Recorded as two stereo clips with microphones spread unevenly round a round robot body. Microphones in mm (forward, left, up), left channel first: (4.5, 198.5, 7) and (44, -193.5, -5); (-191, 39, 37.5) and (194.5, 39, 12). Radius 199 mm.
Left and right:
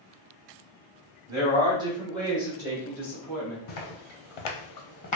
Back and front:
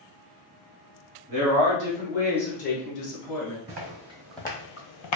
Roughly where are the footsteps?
Ahead left.